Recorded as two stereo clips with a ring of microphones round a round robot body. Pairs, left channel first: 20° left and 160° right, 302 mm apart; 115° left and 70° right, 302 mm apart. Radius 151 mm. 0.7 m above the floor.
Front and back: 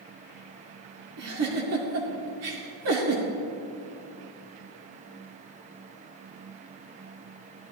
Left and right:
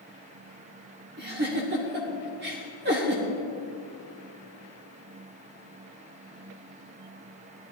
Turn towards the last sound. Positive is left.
turn(degrees=-120)